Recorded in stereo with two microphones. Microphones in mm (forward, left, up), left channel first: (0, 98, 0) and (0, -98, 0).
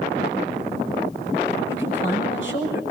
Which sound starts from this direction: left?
A man speaking, at 1.7 s.